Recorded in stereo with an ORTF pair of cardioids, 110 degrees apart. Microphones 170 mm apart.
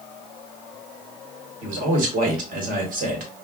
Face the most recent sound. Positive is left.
turn(degrees=-55)